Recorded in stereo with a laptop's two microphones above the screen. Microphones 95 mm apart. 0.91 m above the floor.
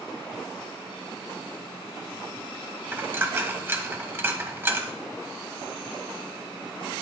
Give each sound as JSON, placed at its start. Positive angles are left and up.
{"t": 2.9, "sound": "a dropped coin", "side_deg": -25, "distance_m": 1.4}